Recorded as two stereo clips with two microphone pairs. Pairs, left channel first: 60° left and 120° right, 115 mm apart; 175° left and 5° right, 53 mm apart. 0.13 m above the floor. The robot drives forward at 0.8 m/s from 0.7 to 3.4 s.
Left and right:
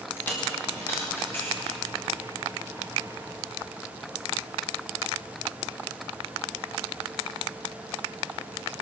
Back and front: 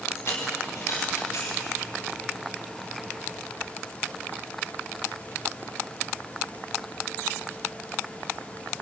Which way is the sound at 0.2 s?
135° left.